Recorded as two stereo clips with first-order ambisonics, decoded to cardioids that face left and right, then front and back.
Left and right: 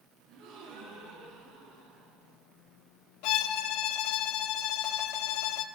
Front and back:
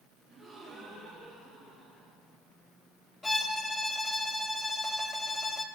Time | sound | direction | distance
0.3 | a gasp | 95° right | 5 m
3.2 | a violin | 80° left | 0.8 m